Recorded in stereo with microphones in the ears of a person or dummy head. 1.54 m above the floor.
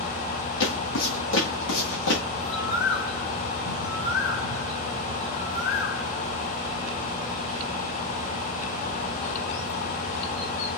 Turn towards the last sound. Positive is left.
turn(degrees=55)  # may be behind; listen again after turning